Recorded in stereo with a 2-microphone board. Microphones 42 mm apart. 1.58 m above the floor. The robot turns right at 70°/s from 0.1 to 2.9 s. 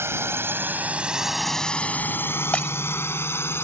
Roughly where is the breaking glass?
Left.